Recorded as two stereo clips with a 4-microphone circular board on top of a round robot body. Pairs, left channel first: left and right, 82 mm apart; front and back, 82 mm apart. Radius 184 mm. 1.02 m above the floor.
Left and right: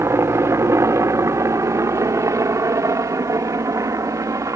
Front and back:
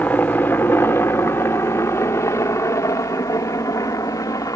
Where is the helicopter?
60° right; by 4.6 s 45° right.